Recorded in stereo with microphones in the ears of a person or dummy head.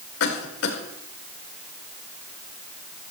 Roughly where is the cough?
Left.